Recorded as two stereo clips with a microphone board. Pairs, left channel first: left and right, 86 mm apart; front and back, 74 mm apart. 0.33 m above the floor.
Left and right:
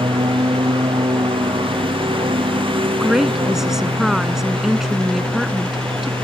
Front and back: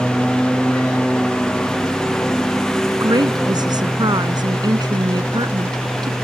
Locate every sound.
0.0 s a lawn mower: 80° right; by 6.2 s 85° right
3.0 s a woman speaking: 175° right